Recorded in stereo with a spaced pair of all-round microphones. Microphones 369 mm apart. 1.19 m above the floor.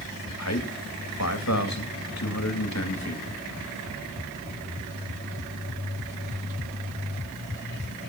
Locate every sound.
0.4 s a man speaking: 45° left (ahead or behind), 2.5 m